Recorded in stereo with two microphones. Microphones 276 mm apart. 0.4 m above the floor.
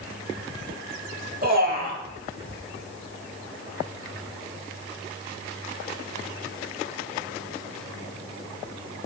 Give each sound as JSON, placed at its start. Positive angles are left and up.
{"t": 1.4, "sound": "a man speaking", "side_deg": -35, "distance_m": 1.1}